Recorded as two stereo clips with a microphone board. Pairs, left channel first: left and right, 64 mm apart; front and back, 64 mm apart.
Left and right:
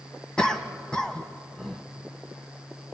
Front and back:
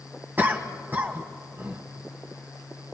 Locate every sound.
0.4 s a cough: 155° left, 1.8 m